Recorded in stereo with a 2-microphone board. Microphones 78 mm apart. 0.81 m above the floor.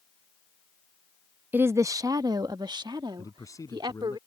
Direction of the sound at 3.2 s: 45° left (ahead or behind).